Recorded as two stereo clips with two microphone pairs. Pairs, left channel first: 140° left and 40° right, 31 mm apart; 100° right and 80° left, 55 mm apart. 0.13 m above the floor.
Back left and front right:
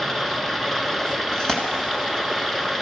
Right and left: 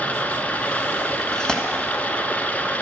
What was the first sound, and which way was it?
Running water, 140° right.